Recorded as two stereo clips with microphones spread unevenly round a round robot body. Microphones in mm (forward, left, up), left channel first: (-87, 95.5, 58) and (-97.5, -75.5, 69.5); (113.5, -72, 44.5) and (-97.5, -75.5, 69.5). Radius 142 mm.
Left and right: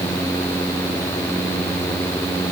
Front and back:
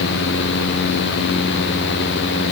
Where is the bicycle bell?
No bicycle bell in this recording.